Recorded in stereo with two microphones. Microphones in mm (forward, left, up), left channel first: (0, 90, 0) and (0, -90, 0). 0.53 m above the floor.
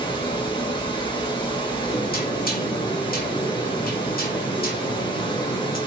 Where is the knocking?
55° left (ahead or behind), 1.0 m.